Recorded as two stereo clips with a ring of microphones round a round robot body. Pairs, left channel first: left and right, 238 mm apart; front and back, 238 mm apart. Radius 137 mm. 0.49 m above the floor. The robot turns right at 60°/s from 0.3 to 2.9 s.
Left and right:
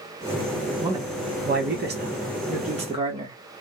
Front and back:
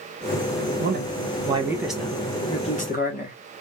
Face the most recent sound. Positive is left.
turn(degrees=-35)